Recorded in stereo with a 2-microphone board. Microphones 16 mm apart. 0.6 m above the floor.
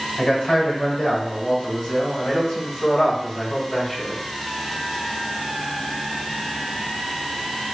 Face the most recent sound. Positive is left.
turn(degrees=60)  # may be behind; listen again after turning